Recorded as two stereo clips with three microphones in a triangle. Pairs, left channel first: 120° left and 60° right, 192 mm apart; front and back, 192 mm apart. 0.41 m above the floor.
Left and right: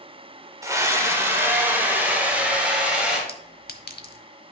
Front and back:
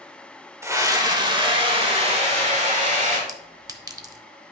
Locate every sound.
0.6 s a scream: 120° right, 1.3 m; by 3.2 s 145° right, 2.5 m
3.3 s a clink: 110° left, 0.8 m